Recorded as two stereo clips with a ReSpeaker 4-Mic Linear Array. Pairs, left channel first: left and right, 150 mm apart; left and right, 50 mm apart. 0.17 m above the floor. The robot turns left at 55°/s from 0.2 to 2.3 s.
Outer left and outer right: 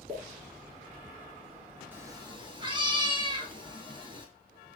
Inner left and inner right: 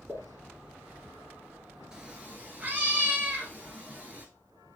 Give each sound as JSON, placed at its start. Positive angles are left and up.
{"t": 0.1, "sound": "a pop", "side_deg": -40, "distance_m": 2.0}
{"t": 1.9, "sound": "a cat meowing", "side_deg": -15, "distance_m": 1.0}